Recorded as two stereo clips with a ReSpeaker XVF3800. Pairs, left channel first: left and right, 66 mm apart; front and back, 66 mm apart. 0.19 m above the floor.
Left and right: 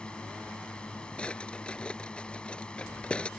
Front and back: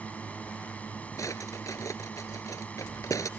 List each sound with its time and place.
0.0 s a drone: 35° left
1.2 s a drawer: 20° left